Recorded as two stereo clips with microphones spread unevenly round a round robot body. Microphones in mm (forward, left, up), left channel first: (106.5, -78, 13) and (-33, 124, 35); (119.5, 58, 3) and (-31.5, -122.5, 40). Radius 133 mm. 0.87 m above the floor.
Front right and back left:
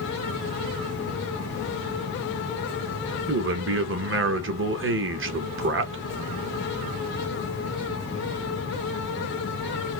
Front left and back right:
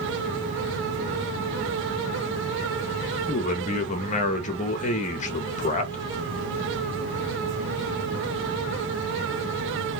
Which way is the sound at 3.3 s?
95° left.